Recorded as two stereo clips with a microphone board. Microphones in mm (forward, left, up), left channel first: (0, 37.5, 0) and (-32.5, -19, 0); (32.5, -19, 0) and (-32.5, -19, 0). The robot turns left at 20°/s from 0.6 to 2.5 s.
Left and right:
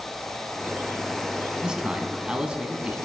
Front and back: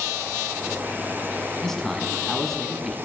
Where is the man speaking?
65° right, 1.0 m; by 3.0 s 80° right, 1.0 m.